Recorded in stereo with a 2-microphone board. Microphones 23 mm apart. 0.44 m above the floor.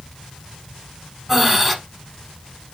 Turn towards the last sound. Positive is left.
turn(degrees=-5)  # may be behind; listen again after turning